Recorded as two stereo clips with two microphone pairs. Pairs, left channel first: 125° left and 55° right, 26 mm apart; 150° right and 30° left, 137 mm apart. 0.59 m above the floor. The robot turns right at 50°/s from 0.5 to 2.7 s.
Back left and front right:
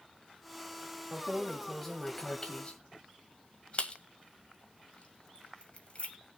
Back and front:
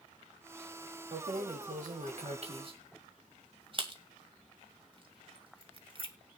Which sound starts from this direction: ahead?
Keys jangling, at 1.1 s.